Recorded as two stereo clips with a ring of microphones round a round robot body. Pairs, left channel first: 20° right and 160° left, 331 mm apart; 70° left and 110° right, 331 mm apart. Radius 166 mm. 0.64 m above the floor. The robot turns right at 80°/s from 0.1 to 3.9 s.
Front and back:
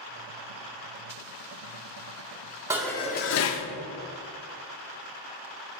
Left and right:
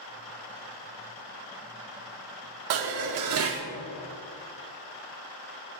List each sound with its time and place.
2.7 s dishes clattering: 125° right, 0.7 m; by 3.7 s 45° right, 0.7 m